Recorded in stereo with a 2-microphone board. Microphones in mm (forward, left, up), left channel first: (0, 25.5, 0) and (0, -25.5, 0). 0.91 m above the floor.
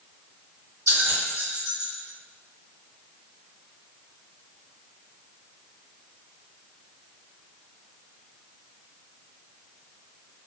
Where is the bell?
80° right, 1.6 m.